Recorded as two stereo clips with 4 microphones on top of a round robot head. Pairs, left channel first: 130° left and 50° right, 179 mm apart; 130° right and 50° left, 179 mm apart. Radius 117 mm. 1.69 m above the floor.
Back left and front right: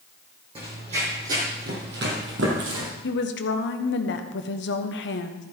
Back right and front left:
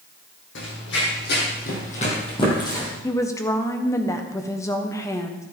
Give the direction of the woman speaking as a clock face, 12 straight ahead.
7 o'clock.